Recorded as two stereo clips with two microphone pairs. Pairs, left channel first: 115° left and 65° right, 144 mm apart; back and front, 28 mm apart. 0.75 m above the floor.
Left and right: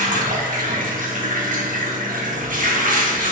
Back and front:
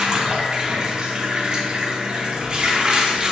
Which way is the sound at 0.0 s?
50° right.